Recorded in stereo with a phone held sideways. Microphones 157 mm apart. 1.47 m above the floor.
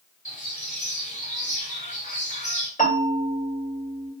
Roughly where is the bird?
Left.